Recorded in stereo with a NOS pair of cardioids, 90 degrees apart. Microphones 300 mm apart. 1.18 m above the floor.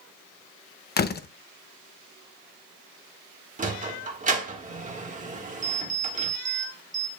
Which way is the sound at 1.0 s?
35° left.